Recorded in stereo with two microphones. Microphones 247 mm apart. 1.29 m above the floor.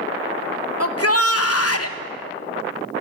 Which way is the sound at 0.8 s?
70° left (ahead or behind).